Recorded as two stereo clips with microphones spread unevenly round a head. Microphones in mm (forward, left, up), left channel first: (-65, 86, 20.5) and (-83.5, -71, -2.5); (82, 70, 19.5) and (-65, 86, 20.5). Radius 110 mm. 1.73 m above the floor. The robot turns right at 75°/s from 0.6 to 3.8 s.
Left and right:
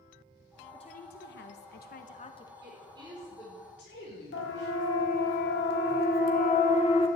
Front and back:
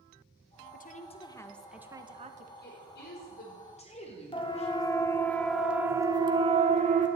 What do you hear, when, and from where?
0.7 s a woman speaking: 15° left, 1.7 m; by 2.5 s 150° left, 1.7 m
2.6 s a woman speaking: 50° right, 5.5 m; by 4.7 s 40° left, 5.5 m
4.3 s a siren: 50° left, 2.5 m; by 7.1 s 140° left, 2 m